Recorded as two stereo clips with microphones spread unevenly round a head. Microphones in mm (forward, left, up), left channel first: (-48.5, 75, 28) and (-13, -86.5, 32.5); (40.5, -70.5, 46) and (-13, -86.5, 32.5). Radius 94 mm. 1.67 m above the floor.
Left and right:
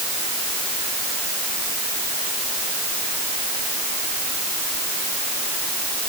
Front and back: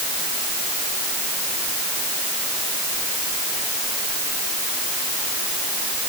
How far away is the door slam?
I don't hear a door slam.